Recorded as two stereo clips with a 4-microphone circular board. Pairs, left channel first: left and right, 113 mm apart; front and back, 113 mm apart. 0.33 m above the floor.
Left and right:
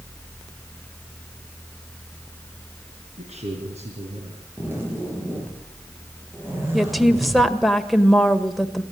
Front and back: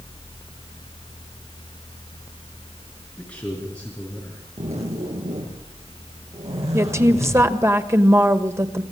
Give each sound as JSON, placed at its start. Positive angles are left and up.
{"t": 3.2, "sound": "a man speaking", "azimuth_deg": -80, "distance_m": 5.0}
{"t": 4.6, "sound": "a zipper", "azimuth_deg": -160, "distance_m": 7.0}
{"t": 6.7, "sound": "a woman speaking", "azimuth_deg": 180, "distance_m": 1.5}